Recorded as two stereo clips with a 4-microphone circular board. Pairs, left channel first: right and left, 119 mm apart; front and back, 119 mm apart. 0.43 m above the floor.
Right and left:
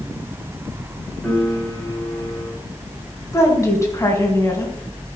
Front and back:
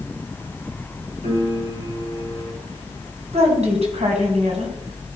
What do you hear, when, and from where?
1.2 s a piano: 175° right, 5 m
3.3 s a woman speaking: 155° right, 3.5 m